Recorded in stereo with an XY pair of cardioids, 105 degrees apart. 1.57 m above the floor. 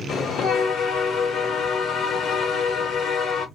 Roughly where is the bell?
Ahead left.